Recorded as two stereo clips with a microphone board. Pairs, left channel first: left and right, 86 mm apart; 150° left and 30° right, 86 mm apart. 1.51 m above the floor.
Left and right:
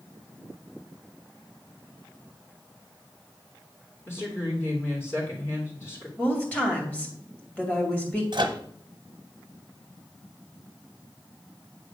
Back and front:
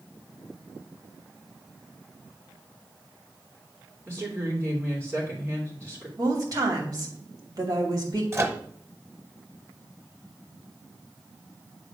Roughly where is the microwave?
Right.